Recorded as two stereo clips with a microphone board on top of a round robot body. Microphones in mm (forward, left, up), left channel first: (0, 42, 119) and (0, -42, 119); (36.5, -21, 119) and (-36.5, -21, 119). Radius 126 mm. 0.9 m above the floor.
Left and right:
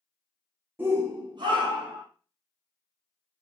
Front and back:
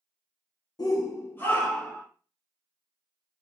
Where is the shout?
25° right, 1.1 m; by 2.0 s 80° right, 2 m.